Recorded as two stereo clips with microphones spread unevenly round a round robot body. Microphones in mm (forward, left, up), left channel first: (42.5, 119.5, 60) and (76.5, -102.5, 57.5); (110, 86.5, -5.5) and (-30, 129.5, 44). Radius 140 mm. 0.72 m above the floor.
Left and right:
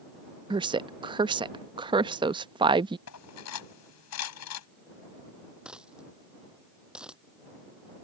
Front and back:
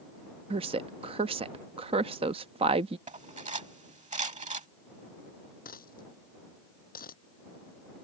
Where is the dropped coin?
5° left.